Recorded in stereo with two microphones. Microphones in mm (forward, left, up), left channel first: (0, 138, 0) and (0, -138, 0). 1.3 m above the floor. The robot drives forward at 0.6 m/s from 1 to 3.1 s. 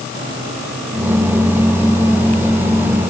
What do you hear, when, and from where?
Only background noise.